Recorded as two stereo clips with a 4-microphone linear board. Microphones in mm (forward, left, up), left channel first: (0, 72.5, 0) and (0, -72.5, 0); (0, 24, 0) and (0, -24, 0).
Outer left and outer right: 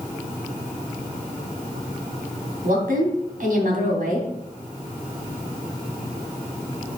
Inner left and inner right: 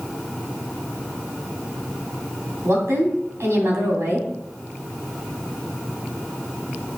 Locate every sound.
2.6 s a woman speaking: 70° right (ahead or behind), 3 m